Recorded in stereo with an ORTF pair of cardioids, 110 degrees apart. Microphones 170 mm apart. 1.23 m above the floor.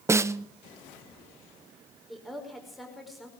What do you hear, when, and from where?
0.1 s a snare drum: 15° right, 0.5 m
2.1 s a woman speaking: straight ahead, 5 m